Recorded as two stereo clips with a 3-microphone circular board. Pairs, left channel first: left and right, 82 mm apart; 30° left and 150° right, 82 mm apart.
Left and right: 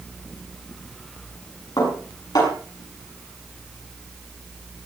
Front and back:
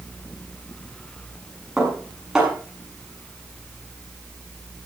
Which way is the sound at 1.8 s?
130° left.